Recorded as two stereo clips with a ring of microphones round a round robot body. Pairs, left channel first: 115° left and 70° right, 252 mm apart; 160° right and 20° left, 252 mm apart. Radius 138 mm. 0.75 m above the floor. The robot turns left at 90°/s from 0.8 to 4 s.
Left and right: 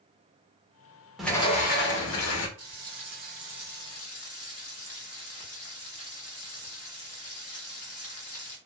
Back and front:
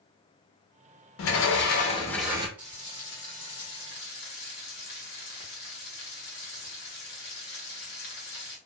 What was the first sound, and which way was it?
A sliding door, 155° right.